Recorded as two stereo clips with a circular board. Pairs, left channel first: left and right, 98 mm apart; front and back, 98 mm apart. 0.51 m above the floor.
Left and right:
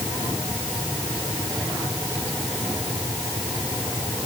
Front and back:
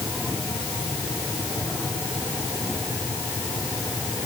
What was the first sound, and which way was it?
Only background noise.